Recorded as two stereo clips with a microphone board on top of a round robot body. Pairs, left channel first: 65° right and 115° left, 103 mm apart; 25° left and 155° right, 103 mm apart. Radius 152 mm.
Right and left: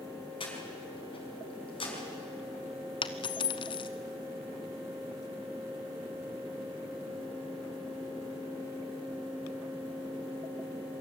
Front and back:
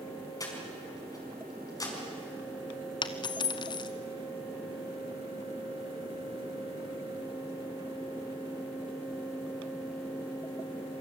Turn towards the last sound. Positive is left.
turn(degrees=-25)